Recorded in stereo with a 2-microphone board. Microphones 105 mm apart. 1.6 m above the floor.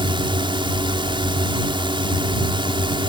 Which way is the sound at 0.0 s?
50° right (ahead or behind).